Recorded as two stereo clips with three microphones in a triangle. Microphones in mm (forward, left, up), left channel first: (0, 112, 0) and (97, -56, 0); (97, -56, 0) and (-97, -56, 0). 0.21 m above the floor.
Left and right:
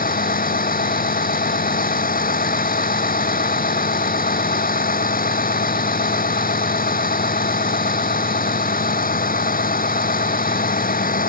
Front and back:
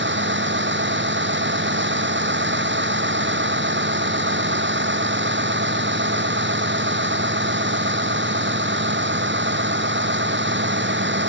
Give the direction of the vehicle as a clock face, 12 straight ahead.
7 o'clock.